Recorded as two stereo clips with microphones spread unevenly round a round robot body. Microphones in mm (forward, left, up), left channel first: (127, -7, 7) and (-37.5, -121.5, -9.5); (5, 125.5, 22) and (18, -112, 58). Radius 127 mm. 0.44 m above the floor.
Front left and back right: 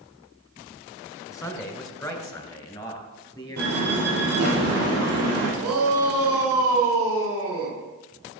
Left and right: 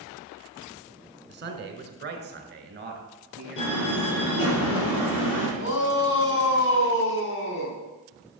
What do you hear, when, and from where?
1.3 s a man speaking: 40° right, 2 m; by 4.6 s 30° right, 4.5 m
3.6 s a door slam: 130° left, 8 m
5.6 s a shout: 135° left, 4 m